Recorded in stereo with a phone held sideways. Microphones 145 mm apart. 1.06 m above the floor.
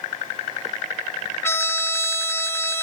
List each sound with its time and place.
1.4 s a trumpet: 15° left (ahead or behind)